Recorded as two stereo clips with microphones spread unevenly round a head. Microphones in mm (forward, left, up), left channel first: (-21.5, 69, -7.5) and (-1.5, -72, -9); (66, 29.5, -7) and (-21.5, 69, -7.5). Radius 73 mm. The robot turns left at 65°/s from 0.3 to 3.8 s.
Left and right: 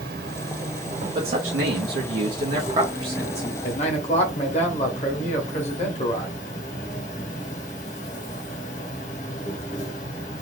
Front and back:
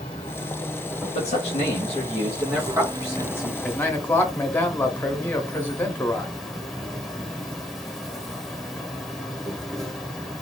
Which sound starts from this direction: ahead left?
A man speaking, at 3.6 s.